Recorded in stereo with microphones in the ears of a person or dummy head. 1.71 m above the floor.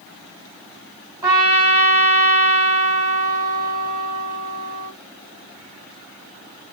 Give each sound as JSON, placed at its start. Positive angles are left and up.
{"t": 1.2, "sound": "a trumpet", "side_deg": -15, "distance_m": 1.3}